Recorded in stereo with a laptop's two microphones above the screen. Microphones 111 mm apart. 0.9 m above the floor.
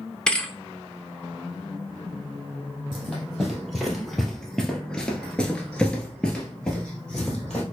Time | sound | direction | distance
0.3 | a thud | 5° left (ahead or behind) | 0.7 m
2.9 | running footsteps | centre (ahead or behind) | 1.9 m